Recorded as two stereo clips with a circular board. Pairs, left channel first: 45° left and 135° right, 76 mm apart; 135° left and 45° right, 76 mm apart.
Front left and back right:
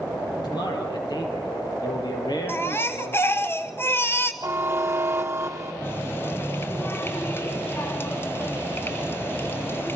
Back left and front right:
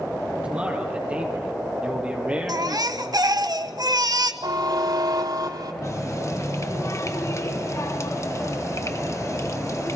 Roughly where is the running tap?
Left.